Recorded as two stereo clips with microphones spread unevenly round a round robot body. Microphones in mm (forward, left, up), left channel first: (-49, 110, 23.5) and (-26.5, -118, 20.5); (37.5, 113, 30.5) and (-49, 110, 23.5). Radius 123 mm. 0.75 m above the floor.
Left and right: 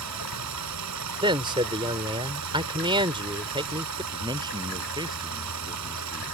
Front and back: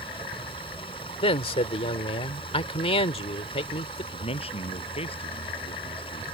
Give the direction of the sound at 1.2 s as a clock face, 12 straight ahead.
12 o'clock.